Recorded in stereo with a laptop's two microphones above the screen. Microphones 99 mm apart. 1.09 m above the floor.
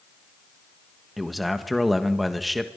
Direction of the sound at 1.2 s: Centre (ahead or behind).